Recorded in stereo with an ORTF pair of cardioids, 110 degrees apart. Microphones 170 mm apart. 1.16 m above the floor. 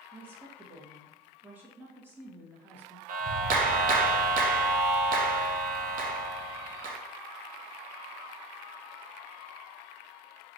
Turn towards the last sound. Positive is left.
turn(degrees=-55)